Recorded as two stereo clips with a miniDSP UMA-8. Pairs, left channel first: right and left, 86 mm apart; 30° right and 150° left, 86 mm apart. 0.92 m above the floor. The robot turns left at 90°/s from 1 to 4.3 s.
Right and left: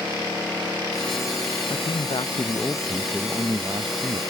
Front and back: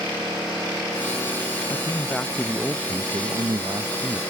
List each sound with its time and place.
1.7 s a man speaking: 60° right; by 4.2 s 75° left